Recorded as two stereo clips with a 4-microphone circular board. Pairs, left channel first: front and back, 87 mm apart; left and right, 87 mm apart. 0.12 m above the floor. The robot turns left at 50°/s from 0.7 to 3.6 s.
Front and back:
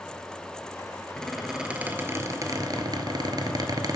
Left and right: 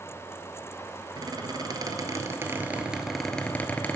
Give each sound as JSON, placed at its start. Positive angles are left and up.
{"t": 1.2, "sound": "a squeak", "azimuth_deg": -80, "distance_m": 1.0}